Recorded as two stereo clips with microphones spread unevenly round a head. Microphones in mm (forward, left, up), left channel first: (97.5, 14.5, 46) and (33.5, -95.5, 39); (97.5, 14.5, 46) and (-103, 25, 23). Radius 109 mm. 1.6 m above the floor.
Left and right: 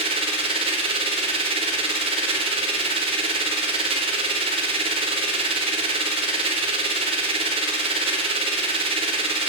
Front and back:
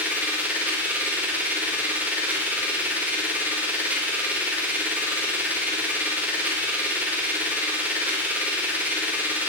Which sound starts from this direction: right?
A machine running, at 0.0 s.